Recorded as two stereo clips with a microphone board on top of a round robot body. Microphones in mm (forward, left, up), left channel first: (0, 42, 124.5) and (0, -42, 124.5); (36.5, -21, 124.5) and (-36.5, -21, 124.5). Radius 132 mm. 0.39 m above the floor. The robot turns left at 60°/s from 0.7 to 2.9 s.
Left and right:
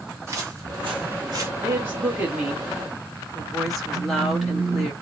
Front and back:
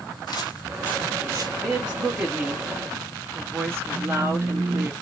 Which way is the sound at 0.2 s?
30° right.